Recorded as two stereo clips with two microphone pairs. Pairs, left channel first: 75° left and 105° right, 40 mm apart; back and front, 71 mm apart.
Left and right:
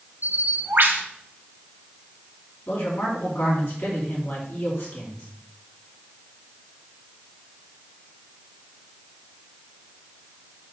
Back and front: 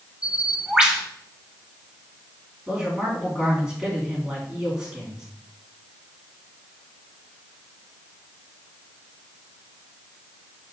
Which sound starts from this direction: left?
A man speaking, at 2.7 s.